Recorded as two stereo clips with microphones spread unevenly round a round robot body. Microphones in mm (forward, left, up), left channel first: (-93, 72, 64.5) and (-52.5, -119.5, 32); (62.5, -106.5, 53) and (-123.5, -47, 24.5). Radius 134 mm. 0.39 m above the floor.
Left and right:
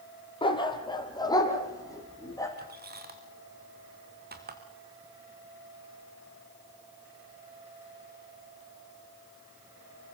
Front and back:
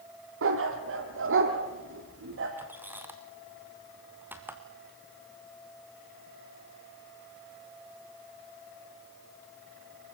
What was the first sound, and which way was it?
A dog barking, 165° left.